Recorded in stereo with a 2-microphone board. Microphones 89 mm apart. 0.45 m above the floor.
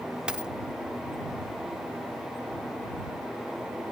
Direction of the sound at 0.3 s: 10° right (ahead or behind).